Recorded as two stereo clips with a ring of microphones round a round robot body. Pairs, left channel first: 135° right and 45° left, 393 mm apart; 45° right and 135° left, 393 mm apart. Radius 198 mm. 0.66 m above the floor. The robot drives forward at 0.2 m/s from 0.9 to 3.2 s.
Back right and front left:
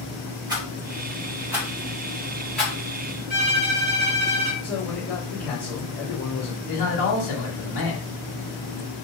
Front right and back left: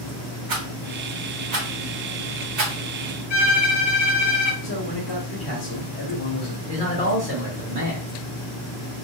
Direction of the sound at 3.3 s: 140° right.